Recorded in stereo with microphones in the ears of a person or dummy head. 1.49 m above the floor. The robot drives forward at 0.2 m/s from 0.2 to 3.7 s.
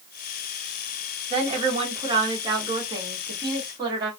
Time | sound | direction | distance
1.3 | a woman speaking | 35° right (ahead or behind) | 1.1 m